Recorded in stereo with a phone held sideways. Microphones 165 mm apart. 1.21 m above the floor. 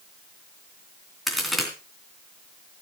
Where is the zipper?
I don't hear a zipper.